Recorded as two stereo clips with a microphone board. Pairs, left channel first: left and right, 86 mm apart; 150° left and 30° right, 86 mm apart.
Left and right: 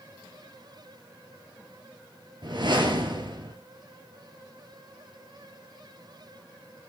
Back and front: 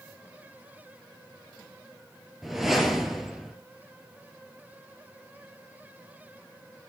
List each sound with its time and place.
2.4 s a whoosh: 115° right, 2 m